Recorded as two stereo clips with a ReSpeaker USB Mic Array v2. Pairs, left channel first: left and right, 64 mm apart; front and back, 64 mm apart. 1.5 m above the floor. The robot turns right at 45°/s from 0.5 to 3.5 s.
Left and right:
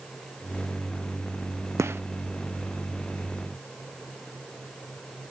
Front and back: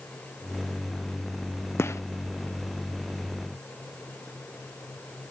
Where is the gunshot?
50° right; by 2.0 s 40° right.